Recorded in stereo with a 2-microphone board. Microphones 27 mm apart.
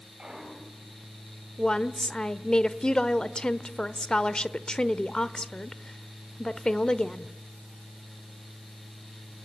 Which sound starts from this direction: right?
A clunk, at 0.2 s.